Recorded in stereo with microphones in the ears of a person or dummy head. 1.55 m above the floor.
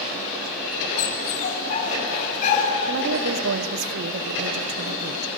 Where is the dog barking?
40° left (ahead or behind), 4 m.